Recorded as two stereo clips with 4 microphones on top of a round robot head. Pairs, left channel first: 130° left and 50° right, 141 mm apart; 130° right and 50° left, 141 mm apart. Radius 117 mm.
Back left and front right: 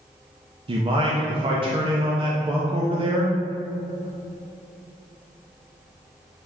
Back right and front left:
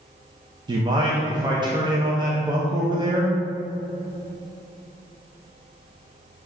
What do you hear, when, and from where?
0.7 s a man speaking: 5° right, 0.7 m